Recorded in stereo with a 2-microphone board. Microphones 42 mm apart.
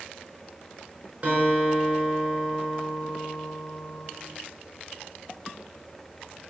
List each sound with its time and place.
1.2 s a guitar: 30° right (ahead or behind), 4.5 m